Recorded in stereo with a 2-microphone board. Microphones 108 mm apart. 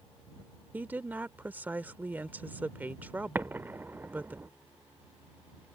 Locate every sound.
0.7 s a woman speaking: 15° right (ahead or behind)
3.4 s an explosion: 20° right (ahead or behind)